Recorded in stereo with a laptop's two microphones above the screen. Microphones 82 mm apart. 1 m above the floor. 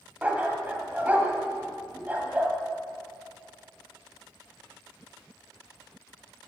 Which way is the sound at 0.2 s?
20° right (ahead or behind).